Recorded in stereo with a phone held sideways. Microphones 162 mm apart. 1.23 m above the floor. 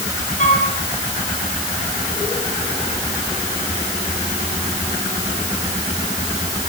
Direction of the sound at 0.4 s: 50° left (ahead or behind).